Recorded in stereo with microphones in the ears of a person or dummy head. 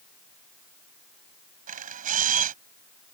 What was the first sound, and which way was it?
A camera shutter, 45° right (ahead or behind).